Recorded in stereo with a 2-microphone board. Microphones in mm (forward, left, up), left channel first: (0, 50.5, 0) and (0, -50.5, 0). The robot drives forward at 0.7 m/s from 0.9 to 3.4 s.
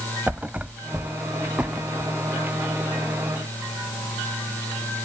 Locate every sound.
0.3 s a thud: 15° right (ahead or behind); by 2.1 s 10° right (ahead or behind)